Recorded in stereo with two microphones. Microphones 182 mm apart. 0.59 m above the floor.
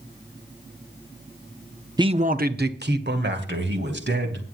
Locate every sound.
2.0 s a man speaking: 20° right (ahead or behind), 0.7 m; by 4.4 s 80° right, 4 m